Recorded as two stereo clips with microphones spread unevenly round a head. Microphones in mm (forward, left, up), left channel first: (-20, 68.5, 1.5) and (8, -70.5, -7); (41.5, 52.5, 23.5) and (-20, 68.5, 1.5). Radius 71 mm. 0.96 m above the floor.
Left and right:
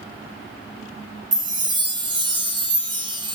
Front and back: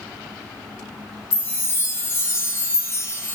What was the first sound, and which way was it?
A chime, 25° right.